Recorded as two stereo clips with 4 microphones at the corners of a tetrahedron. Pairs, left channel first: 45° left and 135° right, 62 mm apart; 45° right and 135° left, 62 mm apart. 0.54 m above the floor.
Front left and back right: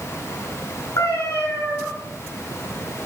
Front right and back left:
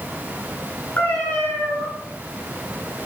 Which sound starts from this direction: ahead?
A cat meowing, at 1.0 s.